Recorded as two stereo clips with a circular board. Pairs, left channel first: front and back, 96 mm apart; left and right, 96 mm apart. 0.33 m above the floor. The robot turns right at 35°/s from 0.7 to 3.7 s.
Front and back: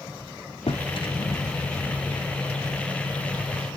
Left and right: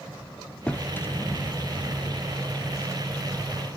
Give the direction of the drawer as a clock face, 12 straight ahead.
12 o'clock.